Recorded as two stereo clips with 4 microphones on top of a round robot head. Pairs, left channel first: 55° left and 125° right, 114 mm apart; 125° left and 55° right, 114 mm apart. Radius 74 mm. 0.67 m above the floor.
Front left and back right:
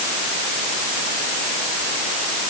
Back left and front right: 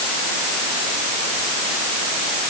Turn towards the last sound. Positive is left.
No sound to turn to.